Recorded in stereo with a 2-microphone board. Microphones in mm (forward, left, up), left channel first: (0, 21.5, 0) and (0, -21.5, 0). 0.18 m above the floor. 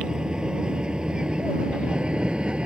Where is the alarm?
No alarm in this recording.